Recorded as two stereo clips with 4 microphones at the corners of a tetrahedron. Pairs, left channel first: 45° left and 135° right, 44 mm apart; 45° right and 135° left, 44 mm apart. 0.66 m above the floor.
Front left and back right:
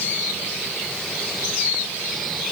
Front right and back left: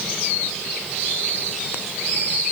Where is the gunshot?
No gunshot in this recording.